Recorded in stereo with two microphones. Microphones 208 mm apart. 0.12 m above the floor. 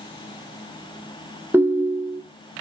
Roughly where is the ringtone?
Centre.